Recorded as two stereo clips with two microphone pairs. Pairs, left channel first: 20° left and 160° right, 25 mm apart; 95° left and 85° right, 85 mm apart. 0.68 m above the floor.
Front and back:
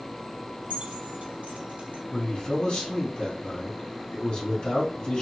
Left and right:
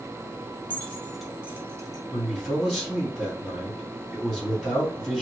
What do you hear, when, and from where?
0.7 s keys jangling: 160° left, 0.7 m; by 2.0 s 125° right, 0.6 m
2.1 s a man speaking: 15° left, 1.7 m